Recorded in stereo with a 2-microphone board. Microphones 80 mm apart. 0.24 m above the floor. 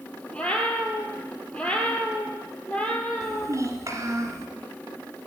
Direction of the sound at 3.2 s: 40° right (ahead or behind).